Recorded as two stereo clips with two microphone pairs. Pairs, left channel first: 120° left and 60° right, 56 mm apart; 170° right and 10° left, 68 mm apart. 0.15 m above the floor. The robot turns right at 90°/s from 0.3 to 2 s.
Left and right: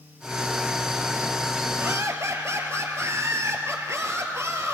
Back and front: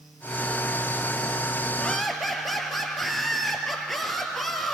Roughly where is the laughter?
Right.